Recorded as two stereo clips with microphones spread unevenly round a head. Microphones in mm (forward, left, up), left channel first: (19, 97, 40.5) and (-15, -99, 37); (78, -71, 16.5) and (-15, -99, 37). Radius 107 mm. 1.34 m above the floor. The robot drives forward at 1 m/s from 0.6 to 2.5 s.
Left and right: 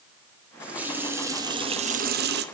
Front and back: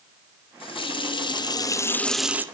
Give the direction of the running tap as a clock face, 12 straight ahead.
1 o'clock.